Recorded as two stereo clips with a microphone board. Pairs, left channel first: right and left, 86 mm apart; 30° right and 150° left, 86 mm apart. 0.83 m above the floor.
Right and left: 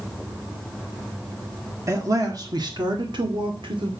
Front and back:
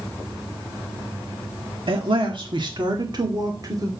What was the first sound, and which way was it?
A man speaking, 145° left.